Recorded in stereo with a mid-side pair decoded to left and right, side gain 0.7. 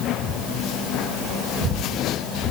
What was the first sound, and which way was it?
Only background noise.